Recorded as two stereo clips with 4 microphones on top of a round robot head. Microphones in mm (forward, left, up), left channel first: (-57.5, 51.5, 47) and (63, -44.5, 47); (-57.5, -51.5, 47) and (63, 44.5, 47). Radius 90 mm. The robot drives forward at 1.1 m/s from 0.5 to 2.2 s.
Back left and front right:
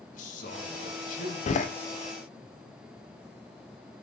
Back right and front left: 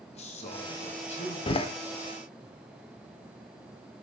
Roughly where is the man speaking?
Behind.